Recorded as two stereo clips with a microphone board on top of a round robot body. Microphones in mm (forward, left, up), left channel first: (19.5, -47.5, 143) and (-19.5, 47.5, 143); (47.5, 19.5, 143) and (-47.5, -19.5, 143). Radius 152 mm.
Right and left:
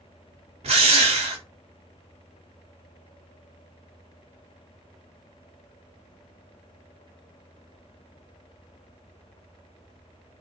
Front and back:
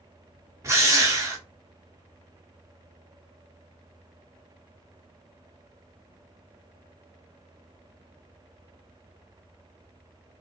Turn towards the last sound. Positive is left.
turn(degrees=135)